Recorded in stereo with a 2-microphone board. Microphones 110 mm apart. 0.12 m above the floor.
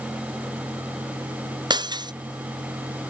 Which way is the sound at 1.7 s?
40° right (ahead or behind).